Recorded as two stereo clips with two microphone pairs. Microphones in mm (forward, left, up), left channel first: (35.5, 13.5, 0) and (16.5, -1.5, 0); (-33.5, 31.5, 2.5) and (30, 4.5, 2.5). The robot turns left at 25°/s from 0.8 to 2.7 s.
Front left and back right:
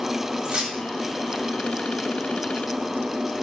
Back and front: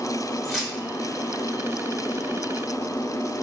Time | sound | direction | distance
0.4 | keys jangling | 115° right | 1.3 m